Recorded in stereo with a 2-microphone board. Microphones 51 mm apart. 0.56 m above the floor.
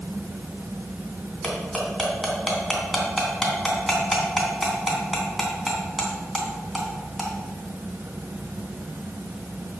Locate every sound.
1.4 s cutlery clinking: centre (ahead or behind), 3 m